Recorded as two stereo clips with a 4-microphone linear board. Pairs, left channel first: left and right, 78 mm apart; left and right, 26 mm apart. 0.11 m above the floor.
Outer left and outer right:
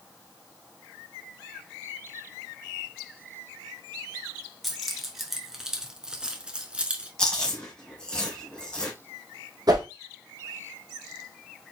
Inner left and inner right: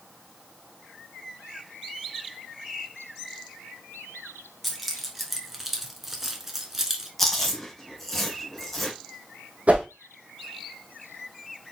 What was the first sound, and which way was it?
Keys jangling, centre (ahead or behind).